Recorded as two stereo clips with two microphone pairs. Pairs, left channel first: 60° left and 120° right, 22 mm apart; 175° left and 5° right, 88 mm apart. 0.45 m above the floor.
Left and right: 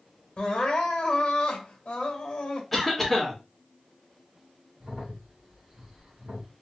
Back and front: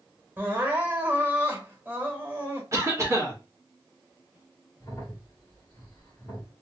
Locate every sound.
0.4 s crying: 60° left, 1.1 m
2.7 s a cough: 25° right, 1.3 m
4.8 s a crack: 145° right, 1.6 m